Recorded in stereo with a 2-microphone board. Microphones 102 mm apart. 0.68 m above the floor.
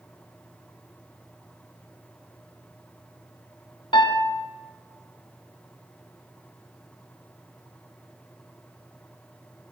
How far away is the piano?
About 0.7 m.